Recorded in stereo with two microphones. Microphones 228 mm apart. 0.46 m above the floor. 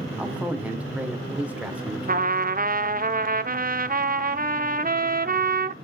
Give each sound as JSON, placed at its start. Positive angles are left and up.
{"t": 0.2, "sound": "a man speaking", "side_deg": -5, "distance_m": 1.7}
{"t": 2.1, "sound": "a trumpet", "side_deg": -40, "distance_m": 0.7}